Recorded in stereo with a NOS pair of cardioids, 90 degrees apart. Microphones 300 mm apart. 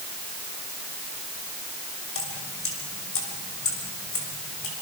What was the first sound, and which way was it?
Dripping, 45° left.